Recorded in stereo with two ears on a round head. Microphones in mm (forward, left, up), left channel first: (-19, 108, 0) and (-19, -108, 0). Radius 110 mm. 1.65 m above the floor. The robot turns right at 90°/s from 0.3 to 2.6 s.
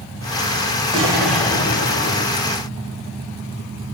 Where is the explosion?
30° right, 2.0 m; by 2.4 s 105° left, 2.0 m.